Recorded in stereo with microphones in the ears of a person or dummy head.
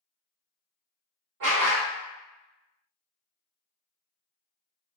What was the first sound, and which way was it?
A dog barking, 55° right (ahead or behind).